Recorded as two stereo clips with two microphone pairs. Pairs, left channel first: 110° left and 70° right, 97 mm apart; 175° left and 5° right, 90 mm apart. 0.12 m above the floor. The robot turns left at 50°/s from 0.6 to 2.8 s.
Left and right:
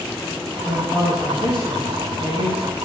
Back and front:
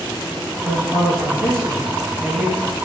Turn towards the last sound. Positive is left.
turn(degrees=60)